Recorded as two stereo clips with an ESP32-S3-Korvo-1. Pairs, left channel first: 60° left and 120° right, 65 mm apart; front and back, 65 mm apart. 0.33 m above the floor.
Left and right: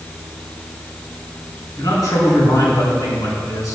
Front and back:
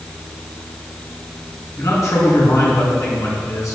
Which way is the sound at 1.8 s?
35° left.